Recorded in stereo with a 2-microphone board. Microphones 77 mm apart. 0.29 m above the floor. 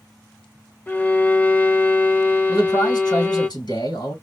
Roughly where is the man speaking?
Left.